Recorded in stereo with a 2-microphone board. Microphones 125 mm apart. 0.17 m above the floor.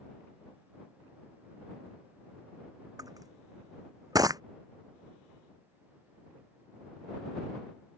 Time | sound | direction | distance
3.0 | crushing | 30° right (ahead or behind) | ?